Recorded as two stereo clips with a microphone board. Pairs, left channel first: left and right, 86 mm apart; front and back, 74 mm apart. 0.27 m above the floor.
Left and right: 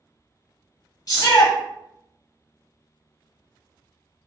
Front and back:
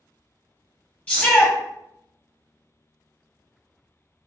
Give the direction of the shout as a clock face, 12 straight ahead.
10 o'clock.